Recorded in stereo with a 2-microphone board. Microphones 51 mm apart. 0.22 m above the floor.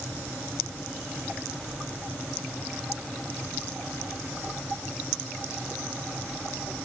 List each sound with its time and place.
Only background noise.